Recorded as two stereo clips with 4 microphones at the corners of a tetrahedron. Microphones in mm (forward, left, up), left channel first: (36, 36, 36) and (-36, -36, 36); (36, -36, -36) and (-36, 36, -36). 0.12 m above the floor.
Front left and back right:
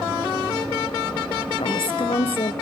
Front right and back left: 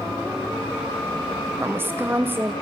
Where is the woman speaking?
70° left, 3 m.